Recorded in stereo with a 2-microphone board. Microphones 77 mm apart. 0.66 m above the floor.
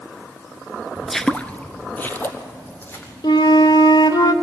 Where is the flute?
65° left (ahead or behind), 1.0 m.